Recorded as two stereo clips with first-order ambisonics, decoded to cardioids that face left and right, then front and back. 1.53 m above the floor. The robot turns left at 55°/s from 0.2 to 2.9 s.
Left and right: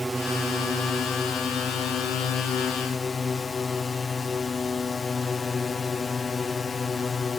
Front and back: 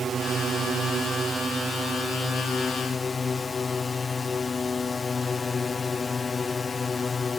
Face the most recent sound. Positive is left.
turn(degrees=45)